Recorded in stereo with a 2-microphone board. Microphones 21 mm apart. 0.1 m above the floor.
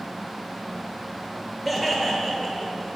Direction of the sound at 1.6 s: Centre (ahead or behind).